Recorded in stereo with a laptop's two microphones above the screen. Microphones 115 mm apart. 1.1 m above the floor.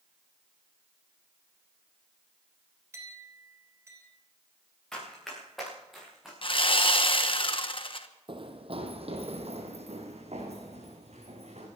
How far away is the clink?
About 3 m.